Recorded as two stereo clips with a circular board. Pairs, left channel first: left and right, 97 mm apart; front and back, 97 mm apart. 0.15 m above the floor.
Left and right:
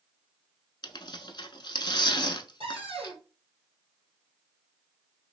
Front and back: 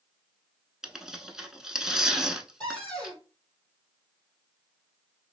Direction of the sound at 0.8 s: 95° left.